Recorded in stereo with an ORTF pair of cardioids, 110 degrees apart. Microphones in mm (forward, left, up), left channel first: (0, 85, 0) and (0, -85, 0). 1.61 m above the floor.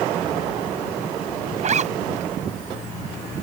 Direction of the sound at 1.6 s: 45° right.